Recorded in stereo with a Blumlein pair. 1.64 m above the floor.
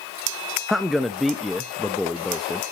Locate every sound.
0.7 s a man speaking: 5° left, 0.6 m